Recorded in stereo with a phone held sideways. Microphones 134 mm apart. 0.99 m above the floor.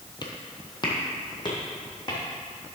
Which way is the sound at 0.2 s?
35° left (ahead or behind).